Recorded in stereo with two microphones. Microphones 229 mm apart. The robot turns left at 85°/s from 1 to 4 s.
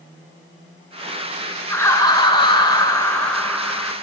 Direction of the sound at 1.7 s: 10° left (ahead or behind).